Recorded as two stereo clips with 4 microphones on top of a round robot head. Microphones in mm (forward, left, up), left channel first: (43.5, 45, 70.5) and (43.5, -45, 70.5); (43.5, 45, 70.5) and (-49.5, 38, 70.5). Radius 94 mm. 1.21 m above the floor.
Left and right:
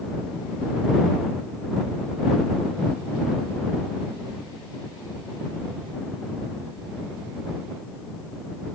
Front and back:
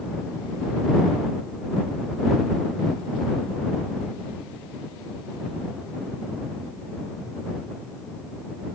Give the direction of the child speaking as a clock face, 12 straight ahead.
I don't hear a child speaking.